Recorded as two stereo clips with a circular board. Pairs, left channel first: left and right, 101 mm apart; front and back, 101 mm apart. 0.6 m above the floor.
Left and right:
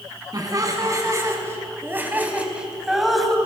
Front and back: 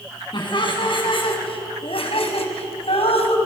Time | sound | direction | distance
0.3 | laughter | 40° right | 7 m